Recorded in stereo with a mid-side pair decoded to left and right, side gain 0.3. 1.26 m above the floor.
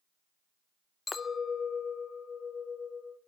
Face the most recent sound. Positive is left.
turn(degrees=60)